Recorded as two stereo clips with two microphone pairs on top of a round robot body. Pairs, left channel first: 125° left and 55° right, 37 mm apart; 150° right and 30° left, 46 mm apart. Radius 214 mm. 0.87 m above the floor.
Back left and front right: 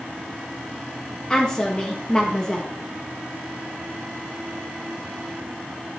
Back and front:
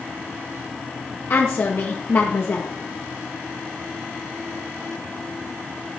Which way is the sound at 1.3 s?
165° right.